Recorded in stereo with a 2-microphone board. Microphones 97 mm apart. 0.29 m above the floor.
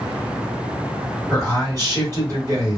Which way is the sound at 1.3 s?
35° right (ahead or behind).